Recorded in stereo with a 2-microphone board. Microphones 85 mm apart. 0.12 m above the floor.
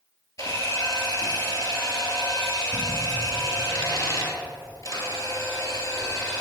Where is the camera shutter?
40° left (ahead or behind), 2 m.